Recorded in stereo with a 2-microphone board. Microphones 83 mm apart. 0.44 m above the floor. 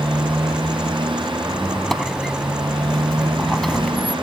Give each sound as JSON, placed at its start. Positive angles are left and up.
{"t": 0.0, "sound": "a motorcycle", "side_deg": -85}
{"t": 1.5, "sound": "a squeak", "side_deg": 5}